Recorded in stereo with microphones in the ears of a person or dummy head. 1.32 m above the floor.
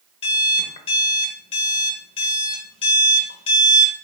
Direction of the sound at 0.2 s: 40° left (ahead or behind).